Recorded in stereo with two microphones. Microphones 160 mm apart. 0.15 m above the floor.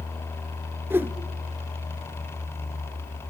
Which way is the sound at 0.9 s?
15° right (ahead or behind).